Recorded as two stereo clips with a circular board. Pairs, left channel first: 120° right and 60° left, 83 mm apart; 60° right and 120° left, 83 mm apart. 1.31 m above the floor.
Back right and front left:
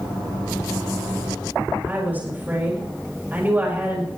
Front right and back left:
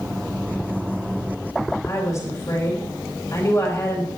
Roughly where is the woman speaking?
Ahead.